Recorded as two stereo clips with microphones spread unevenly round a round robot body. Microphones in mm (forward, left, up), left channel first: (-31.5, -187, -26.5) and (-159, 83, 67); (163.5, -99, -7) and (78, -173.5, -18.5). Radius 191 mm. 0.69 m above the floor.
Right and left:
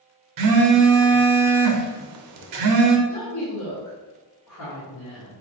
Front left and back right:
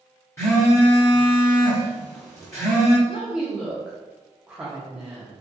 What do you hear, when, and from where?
0.4 s a phone buzzing: 110° left, 0.6 m
3.1 s a woman speaking: 60° right, 1.2 m